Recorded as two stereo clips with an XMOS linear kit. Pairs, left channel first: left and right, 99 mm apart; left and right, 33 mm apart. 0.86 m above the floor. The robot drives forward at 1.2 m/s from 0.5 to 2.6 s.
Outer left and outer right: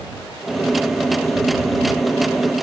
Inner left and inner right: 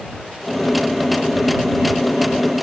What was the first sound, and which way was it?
Only background noise.